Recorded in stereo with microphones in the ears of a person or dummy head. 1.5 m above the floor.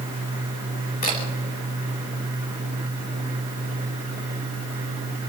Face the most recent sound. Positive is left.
turn(degrees=35)  # may be behind; listen again after turning